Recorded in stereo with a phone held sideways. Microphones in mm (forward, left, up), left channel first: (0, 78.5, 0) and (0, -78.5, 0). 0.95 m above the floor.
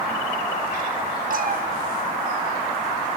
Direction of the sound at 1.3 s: 60° right (ahead or behind).